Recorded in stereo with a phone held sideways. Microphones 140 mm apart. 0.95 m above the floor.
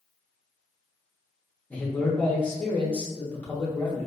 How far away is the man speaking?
About 0.7 m.